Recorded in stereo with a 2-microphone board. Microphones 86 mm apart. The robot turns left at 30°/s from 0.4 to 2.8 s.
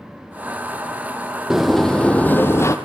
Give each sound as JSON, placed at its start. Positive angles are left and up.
{"t": 1.5, "sound": "a sliding door", "azimuth_deg": -175, "distance_m": 1.6}